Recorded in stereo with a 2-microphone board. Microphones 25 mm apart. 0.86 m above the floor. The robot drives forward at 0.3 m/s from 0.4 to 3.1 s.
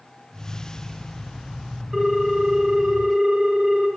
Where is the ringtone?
40° right (ahead or behind), 1.3 m; by 3.9 s 50° right (ahead or behind), 1.1 m.